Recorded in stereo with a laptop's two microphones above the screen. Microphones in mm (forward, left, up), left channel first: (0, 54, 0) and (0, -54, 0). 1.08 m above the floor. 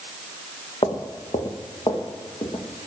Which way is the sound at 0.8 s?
55° left (ahead or behind).